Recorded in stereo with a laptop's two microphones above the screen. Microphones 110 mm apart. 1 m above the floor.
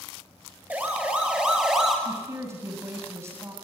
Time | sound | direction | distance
0.7 | a siren | 15° right (ahead or behind) | 5 m
2.0 | a woman speaking | 25° right (ahead or behind) | 6 m